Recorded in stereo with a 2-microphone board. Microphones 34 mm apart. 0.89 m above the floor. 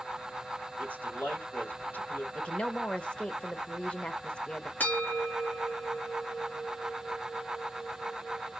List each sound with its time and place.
0.8 s a man speaking: 80° left, 2.5 m
2.4 s a woman speaking: 30° left (ahead or behind), 0.7 m
4.8 s a bell: 70° left (ahead or behind), 1.8 m